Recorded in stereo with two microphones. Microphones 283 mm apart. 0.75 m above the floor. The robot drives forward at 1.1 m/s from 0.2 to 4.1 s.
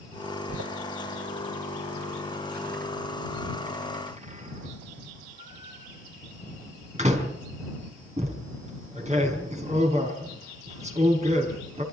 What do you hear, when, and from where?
0.5 s a door slam: 65° right (ahead or behind), 2.5 m; by 11.8 s 25° right (ahead or behind), 5.5 m